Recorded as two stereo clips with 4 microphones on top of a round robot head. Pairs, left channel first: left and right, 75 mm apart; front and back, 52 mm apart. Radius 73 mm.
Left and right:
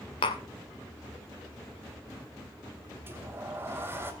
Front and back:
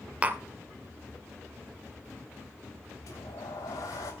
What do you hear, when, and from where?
0.2 s tapping: 115° left, 1.4 m
3.1 s a sliding door: 30° right, 2.5 m